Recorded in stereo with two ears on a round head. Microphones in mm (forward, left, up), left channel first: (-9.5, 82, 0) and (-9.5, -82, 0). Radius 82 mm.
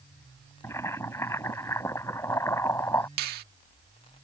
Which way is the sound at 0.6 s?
15° left (ahead or behind).